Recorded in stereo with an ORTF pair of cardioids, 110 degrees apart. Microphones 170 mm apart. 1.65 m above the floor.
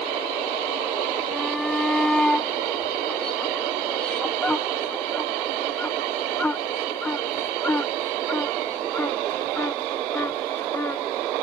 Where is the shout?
Straight ahead; by 11.3 s 15° left.